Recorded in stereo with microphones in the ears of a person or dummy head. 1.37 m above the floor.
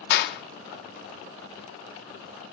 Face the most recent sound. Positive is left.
turn(degrees=65)  # may be behind; listen again after turning